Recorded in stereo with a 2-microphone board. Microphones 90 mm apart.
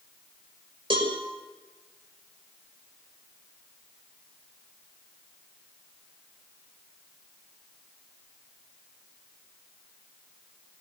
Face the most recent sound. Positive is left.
turn(degrees=-75)  # may be behind; listen again after turning